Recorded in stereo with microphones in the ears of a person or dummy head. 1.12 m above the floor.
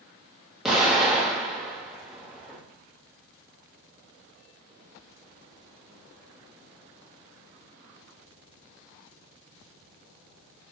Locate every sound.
0.7 s an explosion: centre (ahead or behind), 0.7 m